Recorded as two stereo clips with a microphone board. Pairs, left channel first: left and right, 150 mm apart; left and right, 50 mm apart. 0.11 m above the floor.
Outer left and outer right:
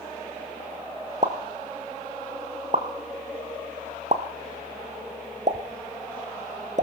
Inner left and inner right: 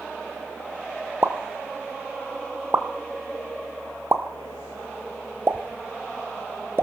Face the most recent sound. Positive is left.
turn(degrees=-55)  # may be behind; listen again after turning